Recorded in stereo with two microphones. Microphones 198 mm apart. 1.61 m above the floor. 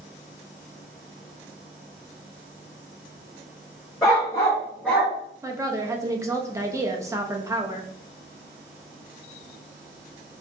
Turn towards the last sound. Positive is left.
turn(degrees=-15)  # may be behind; listen again after turning